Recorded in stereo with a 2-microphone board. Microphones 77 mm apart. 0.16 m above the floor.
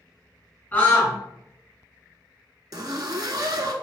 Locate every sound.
0.7 s a scream: 25° left (ahead or behind), 1.6 m
2.7 s a zipper: 60° right (ahead or behind), 0.5 m